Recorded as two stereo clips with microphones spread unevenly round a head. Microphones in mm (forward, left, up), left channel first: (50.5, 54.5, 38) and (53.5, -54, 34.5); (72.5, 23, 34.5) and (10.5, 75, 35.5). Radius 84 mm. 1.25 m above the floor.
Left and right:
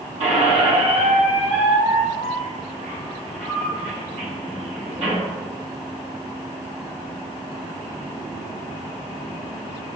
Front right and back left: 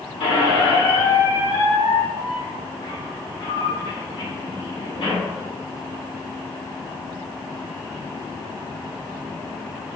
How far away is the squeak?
About 2.5 m.